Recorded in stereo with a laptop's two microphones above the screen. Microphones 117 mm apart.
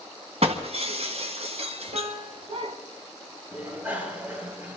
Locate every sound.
0.4 s breaking glass: 65° right (ahead or behind), 2 m
1.9 s a piano: 75° right (ahead or behind), 1.7 m
3.5 s a bicycle bell: 15° right (ahead or behind), 4 m